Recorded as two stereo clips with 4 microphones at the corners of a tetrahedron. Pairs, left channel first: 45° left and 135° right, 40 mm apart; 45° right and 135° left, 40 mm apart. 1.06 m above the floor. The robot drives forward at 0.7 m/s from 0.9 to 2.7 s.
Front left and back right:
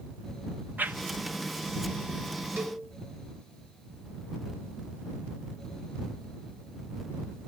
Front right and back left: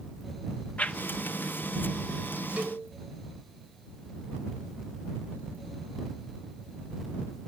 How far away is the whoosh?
About 0.7 m.